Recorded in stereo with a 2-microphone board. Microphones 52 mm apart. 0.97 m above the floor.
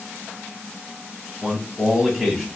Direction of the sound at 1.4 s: 5° right (ahead or behind).